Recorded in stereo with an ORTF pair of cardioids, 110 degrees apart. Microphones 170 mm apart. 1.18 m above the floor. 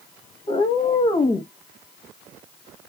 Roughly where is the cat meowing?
Ahead left.